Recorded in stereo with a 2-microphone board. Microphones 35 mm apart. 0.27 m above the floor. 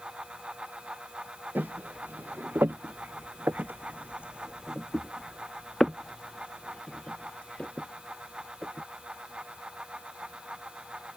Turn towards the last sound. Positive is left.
turn(degrees=35)  # may be behind; listen again after turning